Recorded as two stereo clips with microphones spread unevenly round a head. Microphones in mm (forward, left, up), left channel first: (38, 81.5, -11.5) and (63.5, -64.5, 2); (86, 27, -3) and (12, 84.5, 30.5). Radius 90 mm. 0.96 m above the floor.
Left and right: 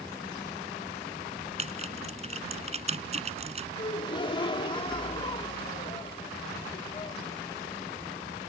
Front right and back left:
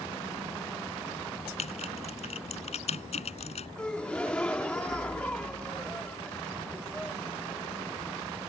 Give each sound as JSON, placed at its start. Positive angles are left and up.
{"t": 1.6, "sound": "typing on a keyboard", "azimuth_deg": -35}
{"t": 3.8, "sound": "a gasp", "azimuth_deg": 45}